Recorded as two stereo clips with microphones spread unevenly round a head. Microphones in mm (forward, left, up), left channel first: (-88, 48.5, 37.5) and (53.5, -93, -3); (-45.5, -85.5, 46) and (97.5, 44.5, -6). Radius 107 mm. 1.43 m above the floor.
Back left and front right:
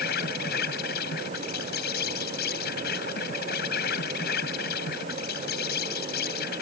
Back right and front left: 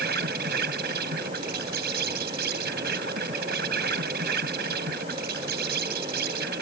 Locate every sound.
0.0 s an insect: 90° left